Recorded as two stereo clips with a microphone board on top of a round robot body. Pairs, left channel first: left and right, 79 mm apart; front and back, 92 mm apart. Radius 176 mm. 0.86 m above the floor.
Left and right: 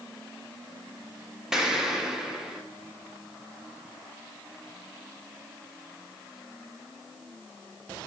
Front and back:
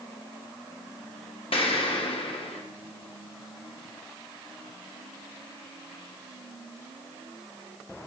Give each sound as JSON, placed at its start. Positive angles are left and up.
{"t": 1.5, "sound": "an explosion", "azimuth_deg": -5, "distance_m": 1.7}